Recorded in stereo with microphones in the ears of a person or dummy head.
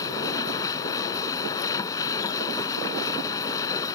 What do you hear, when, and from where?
0.0 s a machine running: 15° left (ahead or behind)